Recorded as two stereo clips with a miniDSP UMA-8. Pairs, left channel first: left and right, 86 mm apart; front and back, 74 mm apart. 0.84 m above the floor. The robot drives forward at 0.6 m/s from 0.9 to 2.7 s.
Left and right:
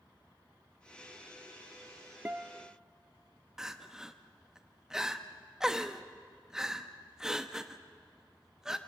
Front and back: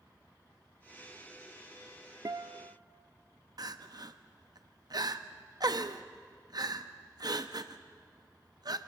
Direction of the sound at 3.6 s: 170° right.